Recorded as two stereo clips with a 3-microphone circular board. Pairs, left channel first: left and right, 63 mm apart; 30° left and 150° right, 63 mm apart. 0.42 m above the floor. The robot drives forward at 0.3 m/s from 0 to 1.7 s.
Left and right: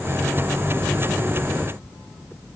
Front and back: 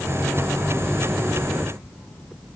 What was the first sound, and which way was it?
Only background noise.